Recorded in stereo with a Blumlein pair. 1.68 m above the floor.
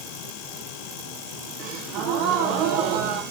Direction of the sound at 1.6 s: 40° right.